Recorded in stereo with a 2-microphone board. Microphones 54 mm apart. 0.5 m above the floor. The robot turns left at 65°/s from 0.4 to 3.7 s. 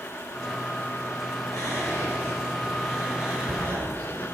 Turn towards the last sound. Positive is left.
turn(degrees=-50)  # may be behind; listen again after turning